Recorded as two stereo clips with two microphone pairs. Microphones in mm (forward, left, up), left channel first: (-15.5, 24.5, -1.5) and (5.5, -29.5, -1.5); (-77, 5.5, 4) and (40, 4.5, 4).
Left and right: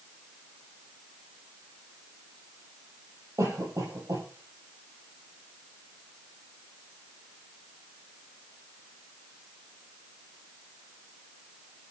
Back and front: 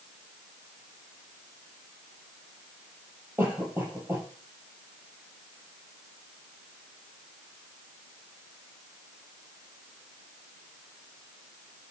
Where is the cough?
75° right, 8.5 m.